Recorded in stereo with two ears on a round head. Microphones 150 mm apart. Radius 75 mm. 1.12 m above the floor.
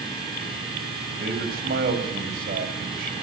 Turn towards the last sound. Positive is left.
turn(degrees=-60)  # may be behind; listen again after turning